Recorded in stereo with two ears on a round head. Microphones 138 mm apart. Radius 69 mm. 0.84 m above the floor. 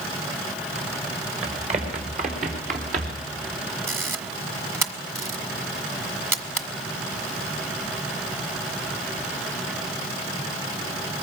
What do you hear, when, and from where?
1.4 s running footsteps: 40° right (ahead or behind), 4.5 m; by 3.3 s 60° right (ahead or behind), 4.5 m
3.9 s a camera shutter: 15° right (ahead or behind), 1.8 m